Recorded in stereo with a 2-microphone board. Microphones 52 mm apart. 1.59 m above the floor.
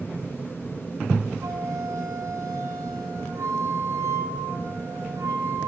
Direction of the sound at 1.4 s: 80° right.